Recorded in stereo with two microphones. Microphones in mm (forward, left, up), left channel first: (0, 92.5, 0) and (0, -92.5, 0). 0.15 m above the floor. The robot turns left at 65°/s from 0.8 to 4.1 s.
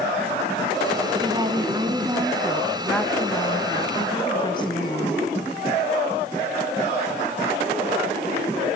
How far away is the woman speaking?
About 1.3 m.